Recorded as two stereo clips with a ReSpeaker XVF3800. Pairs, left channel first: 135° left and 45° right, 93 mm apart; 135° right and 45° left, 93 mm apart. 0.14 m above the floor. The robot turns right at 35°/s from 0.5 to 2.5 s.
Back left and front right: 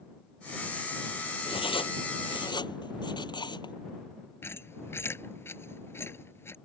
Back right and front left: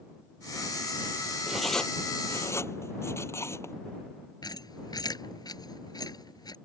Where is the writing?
130° left; by 3.8 s 165° left.